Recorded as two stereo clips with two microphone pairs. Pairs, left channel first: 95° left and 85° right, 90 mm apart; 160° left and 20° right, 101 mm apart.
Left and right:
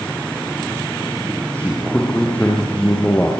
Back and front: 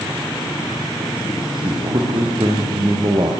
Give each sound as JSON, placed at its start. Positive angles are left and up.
{"t": 1.5, "sound": "a man speaking", "azimuth_deg": 20, "distance_m": 7.0}